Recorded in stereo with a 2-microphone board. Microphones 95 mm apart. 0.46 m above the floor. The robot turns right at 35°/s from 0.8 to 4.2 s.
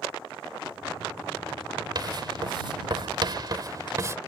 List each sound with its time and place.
1.9 s writing: 45° right (ahead or behind); by 4.2 s 30° right (ahead or behind)